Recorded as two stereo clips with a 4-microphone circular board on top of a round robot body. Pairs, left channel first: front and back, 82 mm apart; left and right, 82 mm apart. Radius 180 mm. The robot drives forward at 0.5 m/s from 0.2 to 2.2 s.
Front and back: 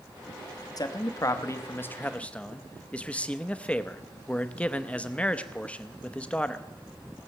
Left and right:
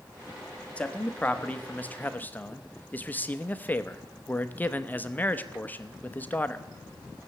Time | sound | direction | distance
0.8 | a man speaking | 20° left | 1.3 m